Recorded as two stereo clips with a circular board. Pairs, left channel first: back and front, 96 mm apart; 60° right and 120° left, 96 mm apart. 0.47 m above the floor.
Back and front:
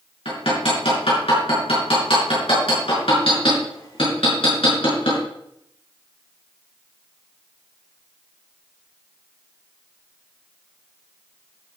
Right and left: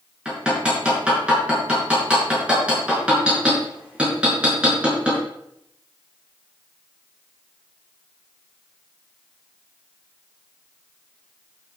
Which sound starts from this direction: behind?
Hammering, at 0.2 s.